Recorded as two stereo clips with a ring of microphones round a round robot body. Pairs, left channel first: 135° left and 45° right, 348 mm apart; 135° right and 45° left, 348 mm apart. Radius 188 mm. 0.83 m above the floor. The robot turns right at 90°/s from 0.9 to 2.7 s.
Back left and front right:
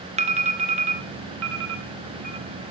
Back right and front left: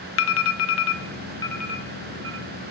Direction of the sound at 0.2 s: 110° right.